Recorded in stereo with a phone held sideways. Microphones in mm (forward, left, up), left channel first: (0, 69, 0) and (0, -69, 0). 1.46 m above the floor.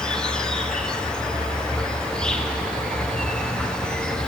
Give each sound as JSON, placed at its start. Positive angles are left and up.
{"t": 0.0, "sound": "an insect", "side_deg": 5, "distance_m": 0.8}